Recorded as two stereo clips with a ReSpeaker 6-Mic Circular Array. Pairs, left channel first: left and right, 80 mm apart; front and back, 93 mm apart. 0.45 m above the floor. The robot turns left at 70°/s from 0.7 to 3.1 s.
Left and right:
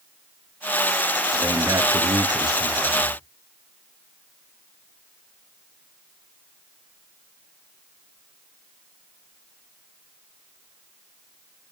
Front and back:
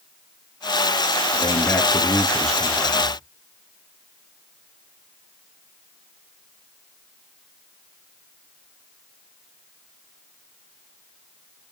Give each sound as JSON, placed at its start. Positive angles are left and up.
{"t": 1.3, "sound": "a man speaking", "azimuth_deg": -10, "distance_m": 7.0}